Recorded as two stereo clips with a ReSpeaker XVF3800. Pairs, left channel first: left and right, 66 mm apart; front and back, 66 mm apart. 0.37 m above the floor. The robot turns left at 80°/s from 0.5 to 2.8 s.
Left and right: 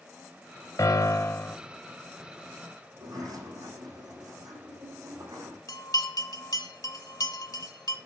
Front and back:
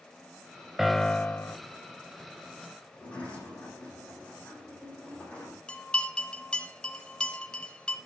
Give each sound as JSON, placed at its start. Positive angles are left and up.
{"t": 0.8, "sound": "a piano", "azimuth_deg": 95, "distance_m": 0.6}
{"t": 2.9, "sound": "a sliding door", "azimuth_deg": -70, "distance_m": 7.5}
{"t": 5.7, "sound": "a bell", "azimuth_deg": 75, "distance_m": 1.2}